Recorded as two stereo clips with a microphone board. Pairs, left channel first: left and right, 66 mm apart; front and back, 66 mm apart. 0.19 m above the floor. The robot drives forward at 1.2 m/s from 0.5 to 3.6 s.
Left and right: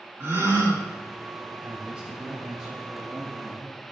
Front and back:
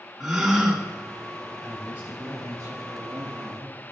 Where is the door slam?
I don't hear a door slam.